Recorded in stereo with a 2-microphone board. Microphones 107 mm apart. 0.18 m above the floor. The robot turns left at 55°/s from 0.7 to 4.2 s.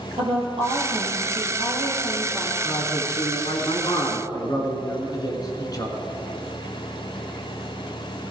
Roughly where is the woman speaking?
Right.